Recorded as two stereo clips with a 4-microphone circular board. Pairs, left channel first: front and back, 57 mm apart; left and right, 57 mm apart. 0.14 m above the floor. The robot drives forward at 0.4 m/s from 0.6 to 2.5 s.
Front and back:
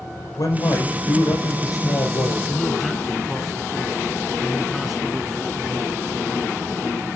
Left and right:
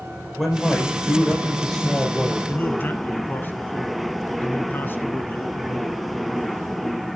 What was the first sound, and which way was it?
A man speaking, 5° left.